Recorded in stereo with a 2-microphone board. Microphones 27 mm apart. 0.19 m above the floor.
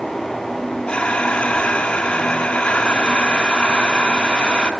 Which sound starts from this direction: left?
Breathing, at 0.9 s.